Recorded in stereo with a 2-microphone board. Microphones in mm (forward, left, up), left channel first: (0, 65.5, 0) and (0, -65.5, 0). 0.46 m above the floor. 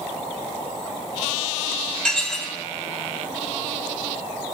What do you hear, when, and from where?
2.0 s dishes clattering: 5° left (ahead or behind), 1.8 m